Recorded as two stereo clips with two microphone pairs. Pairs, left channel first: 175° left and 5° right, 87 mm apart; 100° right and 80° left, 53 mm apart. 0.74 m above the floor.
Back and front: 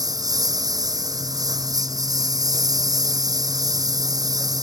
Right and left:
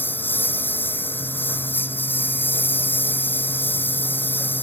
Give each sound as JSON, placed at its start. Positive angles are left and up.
{"t": 0.0, "sound": "a lawn mower", "azimuth_deg": -50}